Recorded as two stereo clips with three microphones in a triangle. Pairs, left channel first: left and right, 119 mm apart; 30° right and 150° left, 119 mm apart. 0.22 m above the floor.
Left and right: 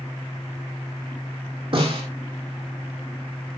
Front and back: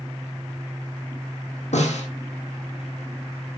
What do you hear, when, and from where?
1.7 s a snare drum: 50° right, 4 m